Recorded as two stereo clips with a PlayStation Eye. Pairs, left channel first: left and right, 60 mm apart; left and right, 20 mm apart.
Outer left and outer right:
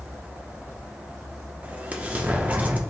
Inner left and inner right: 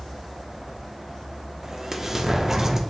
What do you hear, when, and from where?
1.6 s an explosion: 25° right (ahead or behind), 0.6 m